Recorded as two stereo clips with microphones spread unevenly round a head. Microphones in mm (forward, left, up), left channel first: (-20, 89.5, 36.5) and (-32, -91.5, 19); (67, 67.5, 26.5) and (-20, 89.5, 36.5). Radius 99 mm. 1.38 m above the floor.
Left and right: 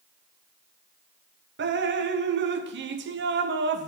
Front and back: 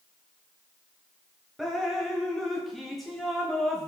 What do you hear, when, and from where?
1.6 s dripping: 100° right, 0.8 m